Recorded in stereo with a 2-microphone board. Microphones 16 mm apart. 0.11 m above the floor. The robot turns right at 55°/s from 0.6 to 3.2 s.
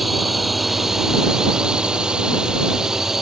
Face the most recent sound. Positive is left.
turn(degrees=-30)